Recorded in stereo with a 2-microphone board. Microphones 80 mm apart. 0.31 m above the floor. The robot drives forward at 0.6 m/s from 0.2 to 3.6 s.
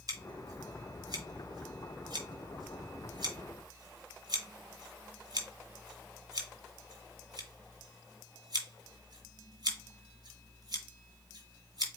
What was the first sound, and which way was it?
Scissors, 50° right (ahead or behind).